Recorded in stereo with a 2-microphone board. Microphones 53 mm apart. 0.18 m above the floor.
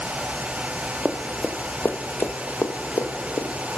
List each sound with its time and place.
1.1 s running footsteps: 10° right (ahead or behind), 0.9 m; by 3.8 s 80° left, 1.5 m